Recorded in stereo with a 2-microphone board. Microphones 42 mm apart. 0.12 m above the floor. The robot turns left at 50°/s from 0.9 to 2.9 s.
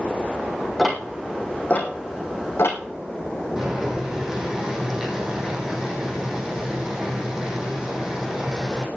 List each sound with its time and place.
0.8 s ticking: 5° left (ahead or behind), 2.5 m; by 2.8 s 80° left, 2.5 m
3.6 s boiling: 15° right (ahead or behind), 4.5 m